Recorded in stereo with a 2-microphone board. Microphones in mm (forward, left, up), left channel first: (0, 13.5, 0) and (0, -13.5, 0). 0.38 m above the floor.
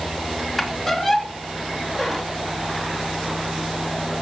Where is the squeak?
Centre (ahead or behind), 3 m.